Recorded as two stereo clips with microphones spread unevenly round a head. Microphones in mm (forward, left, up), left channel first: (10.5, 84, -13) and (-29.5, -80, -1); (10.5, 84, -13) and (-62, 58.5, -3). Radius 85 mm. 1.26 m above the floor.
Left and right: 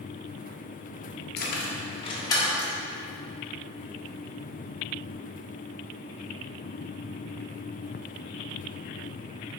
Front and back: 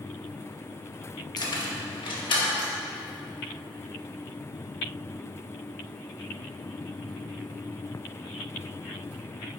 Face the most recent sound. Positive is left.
turn(degrees=-5)